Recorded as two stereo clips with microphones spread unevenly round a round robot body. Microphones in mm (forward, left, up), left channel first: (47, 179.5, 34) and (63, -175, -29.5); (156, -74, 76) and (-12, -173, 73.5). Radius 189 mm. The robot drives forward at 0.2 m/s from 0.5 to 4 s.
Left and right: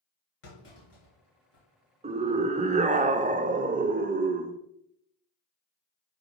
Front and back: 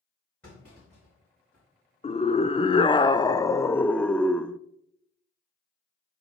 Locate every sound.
0.4 s a clunk: 115° left, 4 m; by 1.6 s 120° left, 4 m
2.0 s a scream: 25° right, 0.8 m; by 4.6 s 55° right, 0.6 m